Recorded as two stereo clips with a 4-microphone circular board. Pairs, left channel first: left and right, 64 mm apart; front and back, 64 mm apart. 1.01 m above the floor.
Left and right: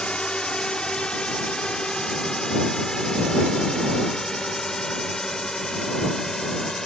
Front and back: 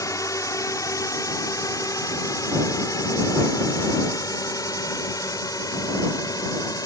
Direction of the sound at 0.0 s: 15° left.